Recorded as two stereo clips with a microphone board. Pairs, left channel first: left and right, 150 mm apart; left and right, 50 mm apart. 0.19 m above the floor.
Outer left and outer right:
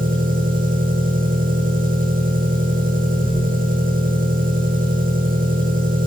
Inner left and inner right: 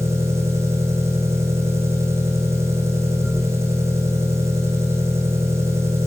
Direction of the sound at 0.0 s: 65° right (ahead or behind).